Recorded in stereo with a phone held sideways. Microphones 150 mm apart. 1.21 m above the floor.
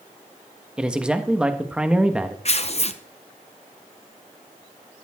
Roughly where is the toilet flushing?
No toilet flushing in this recording.